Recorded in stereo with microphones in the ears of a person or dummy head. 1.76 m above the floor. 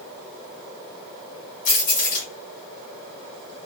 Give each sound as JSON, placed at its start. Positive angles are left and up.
{"t": 1.6, "sound": "keys jangling", "side_deg": 45, "distance_m": 1.3}